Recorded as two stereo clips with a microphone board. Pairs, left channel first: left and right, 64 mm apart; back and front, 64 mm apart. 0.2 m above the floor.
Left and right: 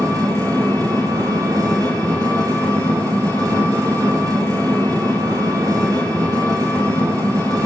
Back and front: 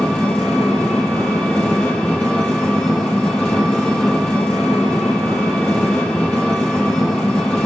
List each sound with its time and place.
0.0 s an engine running: 100° right, 4.5 m